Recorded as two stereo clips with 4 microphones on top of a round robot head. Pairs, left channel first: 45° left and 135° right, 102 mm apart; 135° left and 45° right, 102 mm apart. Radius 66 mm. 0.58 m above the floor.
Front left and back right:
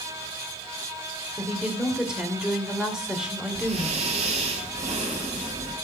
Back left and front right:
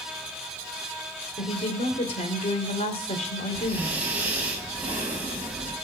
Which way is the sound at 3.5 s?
120° right.